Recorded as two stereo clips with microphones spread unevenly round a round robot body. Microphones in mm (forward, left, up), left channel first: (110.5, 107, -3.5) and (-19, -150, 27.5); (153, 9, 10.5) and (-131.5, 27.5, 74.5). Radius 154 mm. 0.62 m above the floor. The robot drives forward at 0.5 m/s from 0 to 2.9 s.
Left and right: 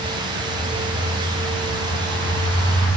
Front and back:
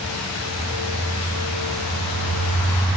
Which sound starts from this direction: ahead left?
A bird, at 0.5 s.